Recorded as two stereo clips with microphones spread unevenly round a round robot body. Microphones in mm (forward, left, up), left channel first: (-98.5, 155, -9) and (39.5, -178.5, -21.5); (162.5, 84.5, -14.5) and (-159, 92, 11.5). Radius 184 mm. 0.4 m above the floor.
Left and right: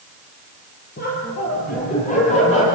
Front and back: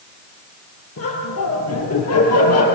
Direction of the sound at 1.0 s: 45° left.